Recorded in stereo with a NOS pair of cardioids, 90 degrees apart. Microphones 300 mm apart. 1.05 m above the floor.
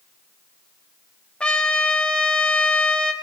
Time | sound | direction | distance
1.4 | a trumpet | 5° left | 1.3 m